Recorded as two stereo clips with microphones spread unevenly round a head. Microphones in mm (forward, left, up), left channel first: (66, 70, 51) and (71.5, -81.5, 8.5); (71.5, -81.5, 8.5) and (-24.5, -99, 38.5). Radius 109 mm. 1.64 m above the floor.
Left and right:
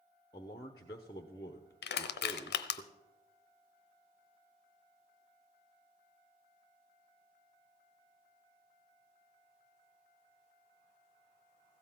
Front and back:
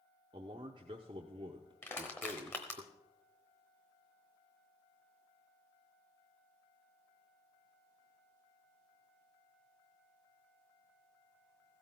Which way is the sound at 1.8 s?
85° left.